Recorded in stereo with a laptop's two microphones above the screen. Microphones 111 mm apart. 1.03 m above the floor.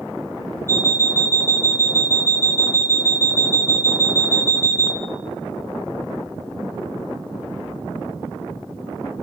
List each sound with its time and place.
0.7 s an alarm clock: 20° left (ahead or behind), 1.0 m